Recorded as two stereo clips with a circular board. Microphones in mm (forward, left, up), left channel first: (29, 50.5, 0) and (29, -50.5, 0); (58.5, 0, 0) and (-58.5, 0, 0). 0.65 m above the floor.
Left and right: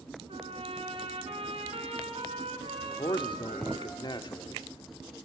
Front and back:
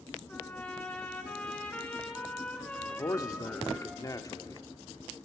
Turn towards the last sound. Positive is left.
turn(degrees=55)